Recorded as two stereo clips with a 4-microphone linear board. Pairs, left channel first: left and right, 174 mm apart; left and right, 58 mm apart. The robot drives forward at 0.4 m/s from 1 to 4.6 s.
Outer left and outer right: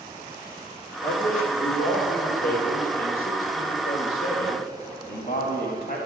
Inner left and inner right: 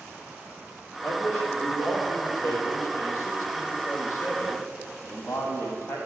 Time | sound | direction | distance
1.0 | a man speaking | 55° left (ahead or behind) | 4.5 m